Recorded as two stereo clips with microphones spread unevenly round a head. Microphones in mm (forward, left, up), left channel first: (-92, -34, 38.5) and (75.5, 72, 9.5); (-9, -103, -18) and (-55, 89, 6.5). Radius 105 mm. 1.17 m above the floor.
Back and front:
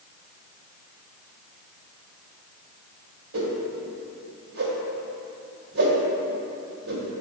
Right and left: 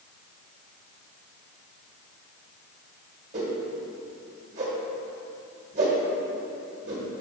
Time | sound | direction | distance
3.3 | a whoosh | 50° left | 1.7 m